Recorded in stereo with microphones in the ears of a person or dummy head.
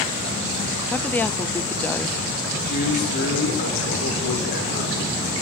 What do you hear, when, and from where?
0.9 s a woman speaking: 15° left (ahead or behind), 0.7 m
2.6 s a man speaking: 50° left (ahead or behind), 7 m